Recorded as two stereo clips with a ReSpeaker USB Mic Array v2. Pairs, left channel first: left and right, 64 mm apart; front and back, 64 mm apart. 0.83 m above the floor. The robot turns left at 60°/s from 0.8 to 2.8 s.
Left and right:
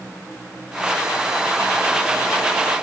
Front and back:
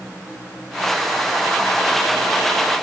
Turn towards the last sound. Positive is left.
No sound to turn to.